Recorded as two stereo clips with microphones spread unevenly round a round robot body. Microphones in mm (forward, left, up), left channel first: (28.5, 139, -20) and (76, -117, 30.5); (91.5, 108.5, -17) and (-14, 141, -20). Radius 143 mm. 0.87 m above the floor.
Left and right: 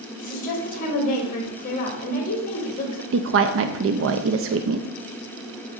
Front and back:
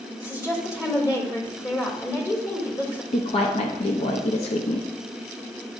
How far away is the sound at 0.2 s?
About 2.5 m.